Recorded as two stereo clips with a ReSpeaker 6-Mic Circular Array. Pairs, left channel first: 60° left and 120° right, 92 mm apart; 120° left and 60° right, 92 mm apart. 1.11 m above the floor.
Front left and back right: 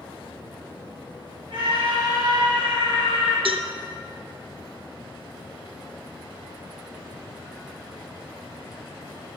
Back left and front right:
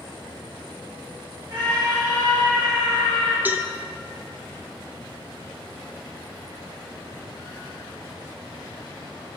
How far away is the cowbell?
About 0.8 m.